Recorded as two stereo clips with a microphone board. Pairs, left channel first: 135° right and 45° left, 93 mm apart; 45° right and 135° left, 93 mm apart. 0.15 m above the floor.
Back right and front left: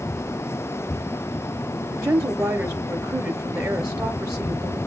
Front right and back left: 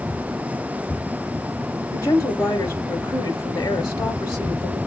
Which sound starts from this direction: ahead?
A woman speaking, at 1.9 s.